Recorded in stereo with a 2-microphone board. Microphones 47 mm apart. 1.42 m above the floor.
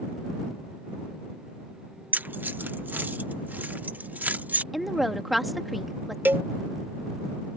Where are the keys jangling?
40° right (ahead or behind); by 4.6 s 45° right (ahead or behind).